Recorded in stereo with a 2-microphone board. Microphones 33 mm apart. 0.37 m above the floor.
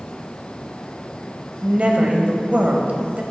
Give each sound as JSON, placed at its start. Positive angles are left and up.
{"t": 1.6, "sound": "a woman speaking", "side_deg": -40, "distance_m": 1.6}